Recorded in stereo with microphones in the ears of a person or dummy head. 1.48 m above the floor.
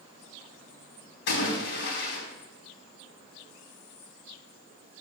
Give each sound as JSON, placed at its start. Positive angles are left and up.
{"t": 1.3, "sound": "a splash", "side_deg": 70, "distance_m": 4.5}